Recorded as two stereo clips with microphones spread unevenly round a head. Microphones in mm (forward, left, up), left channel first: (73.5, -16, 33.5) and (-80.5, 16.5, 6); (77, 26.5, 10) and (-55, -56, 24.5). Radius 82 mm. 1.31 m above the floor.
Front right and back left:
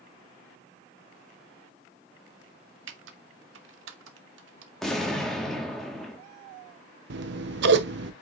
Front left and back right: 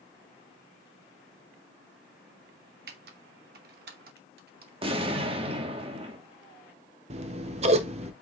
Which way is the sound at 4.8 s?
95° right.